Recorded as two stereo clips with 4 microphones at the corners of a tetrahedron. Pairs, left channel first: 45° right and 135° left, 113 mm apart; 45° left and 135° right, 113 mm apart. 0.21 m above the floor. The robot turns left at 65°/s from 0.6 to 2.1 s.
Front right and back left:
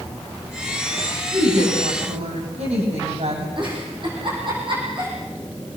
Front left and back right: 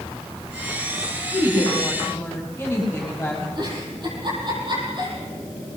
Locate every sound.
1.3 s a woman speaking: 170° left, 8.5 m; by 3.5 s 120° left, 8.5 m
3.6 s a giggle: straight behind, 10 m